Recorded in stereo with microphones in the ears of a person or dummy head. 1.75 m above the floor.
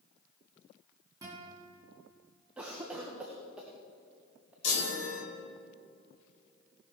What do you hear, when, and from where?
1.2 s a guitar: 20° right (ahead or behind), 2.5 m
2.6 s a cough: 10° right (ahead or behind), 0.7 m
4.6 s a chime: 80° left, 2.5 m